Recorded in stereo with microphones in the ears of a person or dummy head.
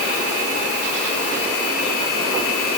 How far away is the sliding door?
No sliding door in this recording.